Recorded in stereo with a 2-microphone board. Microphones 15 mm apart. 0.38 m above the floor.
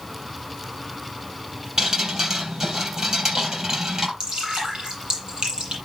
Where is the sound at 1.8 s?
45° right (ahead or behind), 3.5 m.